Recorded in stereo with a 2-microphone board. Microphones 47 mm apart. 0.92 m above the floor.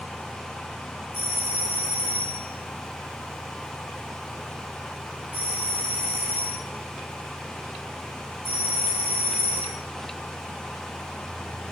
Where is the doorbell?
60° right (ahead or behind), 2.5 m.